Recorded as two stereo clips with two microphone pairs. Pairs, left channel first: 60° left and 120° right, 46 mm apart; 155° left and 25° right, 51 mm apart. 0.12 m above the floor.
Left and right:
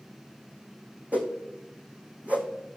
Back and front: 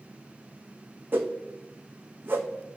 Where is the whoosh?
65° right, 1.6 m.